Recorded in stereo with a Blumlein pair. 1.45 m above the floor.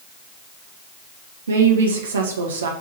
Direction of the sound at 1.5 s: 65° right.